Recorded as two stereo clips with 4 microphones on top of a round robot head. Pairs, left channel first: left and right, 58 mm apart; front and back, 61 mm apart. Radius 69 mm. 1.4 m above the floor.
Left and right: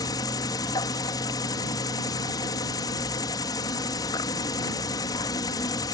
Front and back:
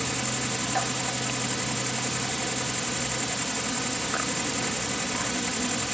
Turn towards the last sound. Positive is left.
turn(degrees=90)